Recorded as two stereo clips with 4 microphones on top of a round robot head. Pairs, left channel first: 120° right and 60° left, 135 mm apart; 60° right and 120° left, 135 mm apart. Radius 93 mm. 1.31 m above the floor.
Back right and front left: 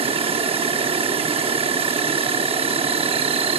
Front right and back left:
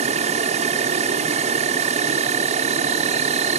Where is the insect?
95° left, 1.1 m.